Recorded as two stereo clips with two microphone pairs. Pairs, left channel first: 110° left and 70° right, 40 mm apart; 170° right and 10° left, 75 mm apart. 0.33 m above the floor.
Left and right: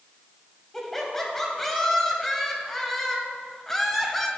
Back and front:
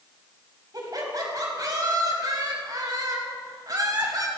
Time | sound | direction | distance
0.7 | laughter | 30° left | 1.6 m